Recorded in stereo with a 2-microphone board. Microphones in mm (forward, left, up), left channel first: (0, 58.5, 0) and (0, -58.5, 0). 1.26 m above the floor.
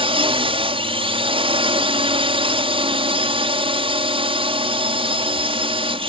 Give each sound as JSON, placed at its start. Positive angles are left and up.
{"t": 0.0, "sound": "a drone", "side_deg": -50}